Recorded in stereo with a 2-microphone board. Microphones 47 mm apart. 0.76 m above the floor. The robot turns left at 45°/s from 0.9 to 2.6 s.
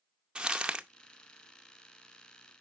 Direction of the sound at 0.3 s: 20° right (ahead or behind).